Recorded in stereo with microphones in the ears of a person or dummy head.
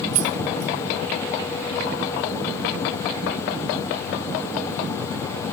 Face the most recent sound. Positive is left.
turn(degrees=-40)  # may be behind; listen again after turning